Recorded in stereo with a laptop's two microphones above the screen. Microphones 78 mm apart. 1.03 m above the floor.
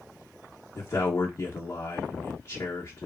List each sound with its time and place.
0.8 s a man speaking: 35° left (ahead or behind), 1.0 m